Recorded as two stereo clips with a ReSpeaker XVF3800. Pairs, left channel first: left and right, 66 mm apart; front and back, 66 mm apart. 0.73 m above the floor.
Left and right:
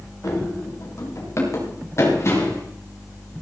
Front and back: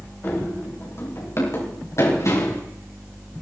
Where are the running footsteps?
55° left, 6.5 m; by 2.6 s 40° left, 6.5 m.